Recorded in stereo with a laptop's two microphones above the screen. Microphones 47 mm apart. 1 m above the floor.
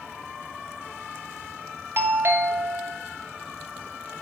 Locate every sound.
2.0 s a doorbell: 50° right (ahead or behind), 0.9 m